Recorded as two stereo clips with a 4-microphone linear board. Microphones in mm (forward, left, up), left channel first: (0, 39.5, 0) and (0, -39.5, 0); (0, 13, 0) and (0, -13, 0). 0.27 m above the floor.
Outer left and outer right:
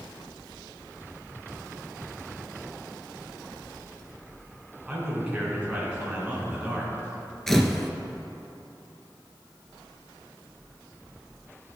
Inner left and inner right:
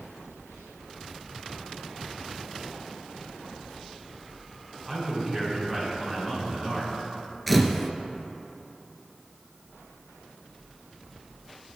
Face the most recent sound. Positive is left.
turn(degrees=5)  # may be behind; listen again after turning